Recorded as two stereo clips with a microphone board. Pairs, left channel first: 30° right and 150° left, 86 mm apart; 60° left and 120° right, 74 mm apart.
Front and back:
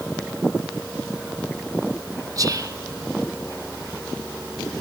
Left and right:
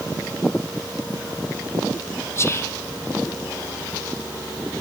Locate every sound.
2.4 s whispering: 110° left, 0.8 m